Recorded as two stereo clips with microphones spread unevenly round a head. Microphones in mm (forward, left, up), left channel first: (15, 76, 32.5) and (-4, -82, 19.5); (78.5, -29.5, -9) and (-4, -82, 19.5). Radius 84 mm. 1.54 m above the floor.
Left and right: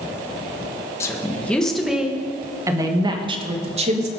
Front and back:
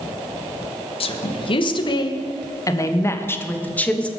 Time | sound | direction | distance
1.0 | a woman speaking | 10° left | 1.8 m